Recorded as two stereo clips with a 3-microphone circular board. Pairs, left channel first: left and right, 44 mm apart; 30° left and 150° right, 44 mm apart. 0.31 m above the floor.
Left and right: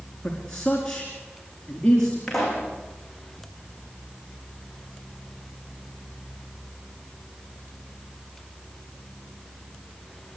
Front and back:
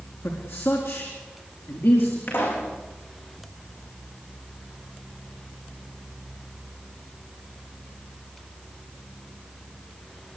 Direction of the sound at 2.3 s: 5° left.